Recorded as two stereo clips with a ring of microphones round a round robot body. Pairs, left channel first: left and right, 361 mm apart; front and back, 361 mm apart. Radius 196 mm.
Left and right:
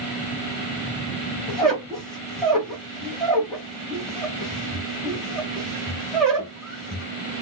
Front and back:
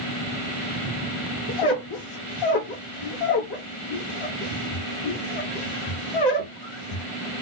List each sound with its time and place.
1.5 s a squeak: straight ahead, 2.5 m